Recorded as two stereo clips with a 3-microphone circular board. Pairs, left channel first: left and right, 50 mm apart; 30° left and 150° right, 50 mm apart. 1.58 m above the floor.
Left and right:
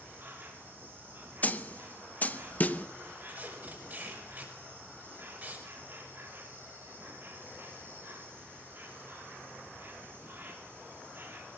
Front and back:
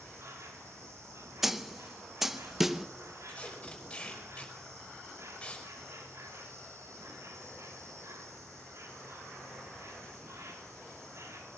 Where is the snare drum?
130° left, 0.8 m.